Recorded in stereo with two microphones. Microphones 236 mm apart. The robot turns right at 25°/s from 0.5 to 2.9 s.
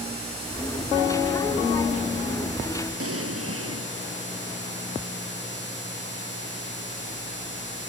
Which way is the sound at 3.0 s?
80° right.